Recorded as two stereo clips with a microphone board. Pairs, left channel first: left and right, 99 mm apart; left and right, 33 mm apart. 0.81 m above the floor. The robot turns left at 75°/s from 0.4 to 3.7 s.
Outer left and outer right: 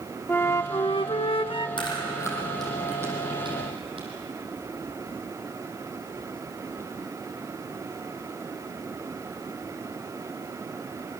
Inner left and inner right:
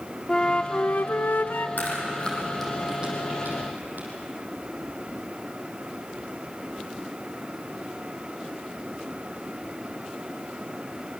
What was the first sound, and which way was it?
A flute, 155° left.